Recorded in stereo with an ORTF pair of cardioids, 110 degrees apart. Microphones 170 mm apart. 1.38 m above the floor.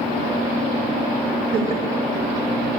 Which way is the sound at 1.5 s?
65° right.